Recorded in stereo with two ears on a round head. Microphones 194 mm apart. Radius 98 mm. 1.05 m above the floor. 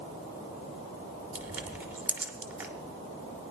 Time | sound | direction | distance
1.4 | crushing | 10° right (ahead or behind) | 1.0 m